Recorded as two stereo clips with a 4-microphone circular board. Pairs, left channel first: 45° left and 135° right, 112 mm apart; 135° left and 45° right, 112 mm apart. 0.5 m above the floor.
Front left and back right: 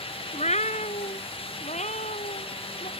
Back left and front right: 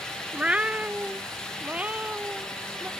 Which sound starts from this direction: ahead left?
A cat meowing, at 0.3 s.